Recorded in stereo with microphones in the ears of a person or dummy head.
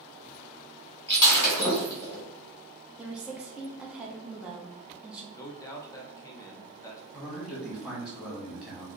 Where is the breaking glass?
20° left (ahead or behind), 1.7 m.